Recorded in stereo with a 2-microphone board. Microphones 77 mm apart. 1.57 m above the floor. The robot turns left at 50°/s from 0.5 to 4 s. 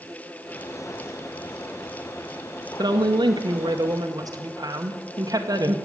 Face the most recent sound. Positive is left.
turn(degrees=-125)